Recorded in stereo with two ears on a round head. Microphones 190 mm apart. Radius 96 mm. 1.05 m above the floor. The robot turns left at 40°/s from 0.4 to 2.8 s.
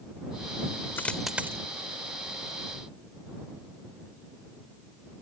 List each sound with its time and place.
1.0 s a dropped coin: 10° left (ahead or behind); by 1.6 s 15° right (ahead or behind)